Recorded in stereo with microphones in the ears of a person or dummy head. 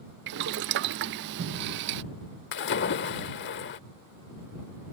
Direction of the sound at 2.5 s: 55° left (ahead or behind).